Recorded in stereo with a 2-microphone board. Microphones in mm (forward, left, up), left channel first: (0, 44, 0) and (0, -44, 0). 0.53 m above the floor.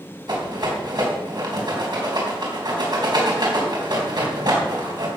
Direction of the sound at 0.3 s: 55° right (ahead or behind).